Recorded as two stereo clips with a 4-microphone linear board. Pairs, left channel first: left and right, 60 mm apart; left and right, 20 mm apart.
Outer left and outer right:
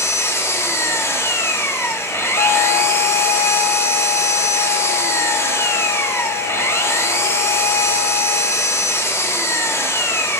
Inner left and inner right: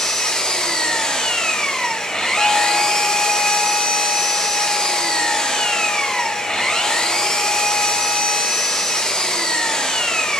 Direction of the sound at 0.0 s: 45° left (ahead or behind).